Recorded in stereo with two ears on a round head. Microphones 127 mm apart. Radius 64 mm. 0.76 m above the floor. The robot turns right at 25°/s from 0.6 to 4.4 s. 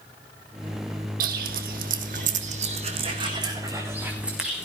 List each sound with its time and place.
1.2 s footsteps: 65° right (ahead or behind), 1.7 m; by 4.7 s 5° right (ahead or behind), 4 m